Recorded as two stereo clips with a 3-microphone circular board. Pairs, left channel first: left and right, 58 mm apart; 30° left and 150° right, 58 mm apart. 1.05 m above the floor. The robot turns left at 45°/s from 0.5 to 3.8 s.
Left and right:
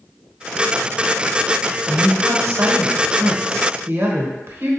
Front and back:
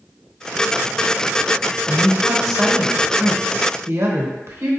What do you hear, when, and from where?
1.9 s a woman speaking: 30° right, 1.0 m; by 4.7 s 120° right, 1.0 m